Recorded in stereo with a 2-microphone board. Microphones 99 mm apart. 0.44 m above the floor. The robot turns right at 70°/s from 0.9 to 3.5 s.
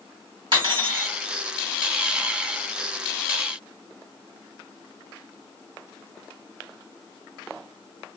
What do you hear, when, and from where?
0.5 s cutlery clinking: 50° right (ahead or behind), 1.3 m; by 1.1 s 40° right (ahead or behind), 1.3 m